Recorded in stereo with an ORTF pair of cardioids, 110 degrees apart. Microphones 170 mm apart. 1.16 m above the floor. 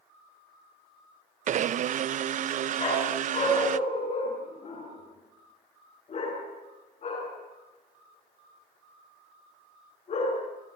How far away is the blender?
About 0.7 m.